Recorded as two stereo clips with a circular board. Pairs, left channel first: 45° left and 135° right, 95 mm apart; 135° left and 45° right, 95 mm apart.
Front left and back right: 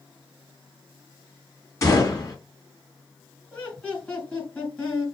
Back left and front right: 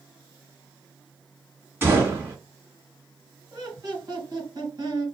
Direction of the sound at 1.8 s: 10° left.